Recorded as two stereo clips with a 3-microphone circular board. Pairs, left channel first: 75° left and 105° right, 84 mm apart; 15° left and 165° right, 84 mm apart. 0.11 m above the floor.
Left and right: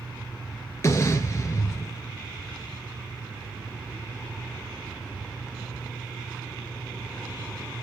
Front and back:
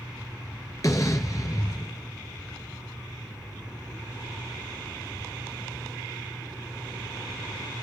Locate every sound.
0.8 s an explosion: 35° left, 1.8 m